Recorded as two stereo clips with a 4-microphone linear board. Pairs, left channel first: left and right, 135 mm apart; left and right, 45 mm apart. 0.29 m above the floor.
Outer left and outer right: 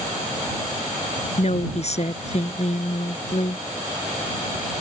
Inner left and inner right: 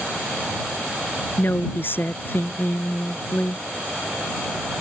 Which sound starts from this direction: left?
A woman speaking, at 1.4 s.